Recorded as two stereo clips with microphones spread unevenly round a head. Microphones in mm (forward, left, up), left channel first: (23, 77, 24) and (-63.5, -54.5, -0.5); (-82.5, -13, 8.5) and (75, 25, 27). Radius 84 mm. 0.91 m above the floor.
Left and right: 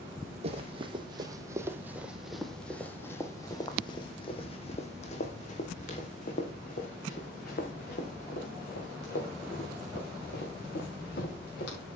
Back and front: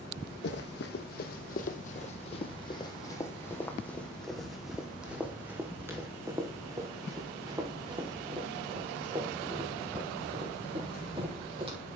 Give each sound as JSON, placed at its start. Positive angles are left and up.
{"t": 0.4, "sound": "running footsteps", "azimuth_deg": -175, "distance_m": 1.6}